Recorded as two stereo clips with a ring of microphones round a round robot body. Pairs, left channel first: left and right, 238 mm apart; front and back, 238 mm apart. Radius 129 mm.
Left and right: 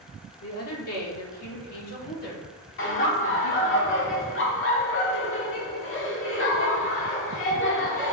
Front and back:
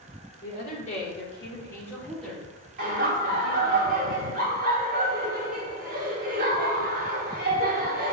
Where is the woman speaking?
55° left, 1.9 m; by 3.8 s 115° left, 2 m.